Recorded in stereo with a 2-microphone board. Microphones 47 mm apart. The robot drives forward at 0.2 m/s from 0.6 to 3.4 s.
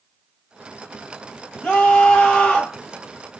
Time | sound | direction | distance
1.6 | a scream | 25° left (ahead or behind) | 1.3 m